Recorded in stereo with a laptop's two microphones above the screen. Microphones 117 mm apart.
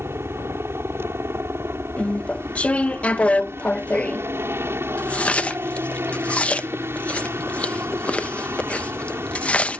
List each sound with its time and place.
0.0 s a helicopter: 20° right (ahead or behind)
2.0 s chewing: 10° left (ahead or behind)